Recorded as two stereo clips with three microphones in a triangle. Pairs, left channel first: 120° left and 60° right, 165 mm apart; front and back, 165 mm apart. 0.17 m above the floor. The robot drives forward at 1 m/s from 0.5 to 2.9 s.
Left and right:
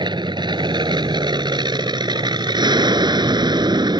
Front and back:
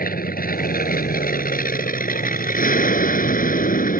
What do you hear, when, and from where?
0.0 s an aircraft: straight ahead